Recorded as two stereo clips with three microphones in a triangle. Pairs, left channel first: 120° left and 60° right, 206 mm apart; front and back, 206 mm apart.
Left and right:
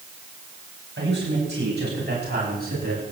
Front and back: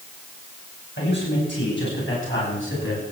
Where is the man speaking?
30° right, 9.5 m; by 3.0 s 15° right, 11.5 m.